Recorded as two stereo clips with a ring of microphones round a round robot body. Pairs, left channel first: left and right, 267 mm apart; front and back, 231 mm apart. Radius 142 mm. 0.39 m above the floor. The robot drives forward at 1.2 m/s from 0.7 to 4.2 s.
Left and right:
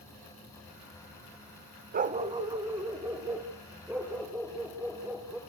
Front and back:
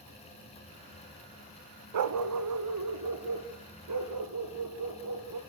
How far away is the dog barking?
About 0.6 m.